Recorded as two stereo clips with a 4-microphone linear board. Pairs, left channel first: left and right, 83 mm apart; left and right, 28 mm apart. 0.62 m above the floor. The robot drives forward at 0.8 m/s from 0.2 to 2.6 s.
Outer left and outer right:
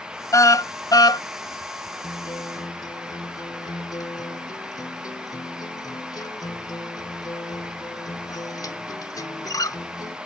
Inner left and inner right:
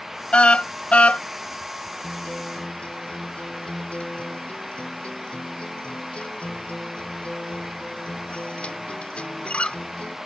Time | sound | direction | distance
0.3 | a car horn | 45° left (ahead or behind) | ?
2.0 | a guitar | 60° left (ahead or behind) | ?